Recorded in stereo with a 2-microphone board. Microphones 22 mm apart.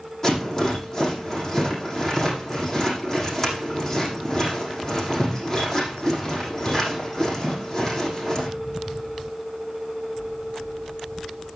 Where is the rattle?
25° left (ahead or behind), 7.5 m.